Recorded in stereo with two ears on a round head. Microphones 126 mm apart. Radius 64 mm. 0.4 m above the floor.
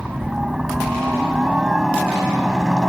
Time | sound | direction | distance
0.0 | a helicopter | 5° right (ahead or behind) | ?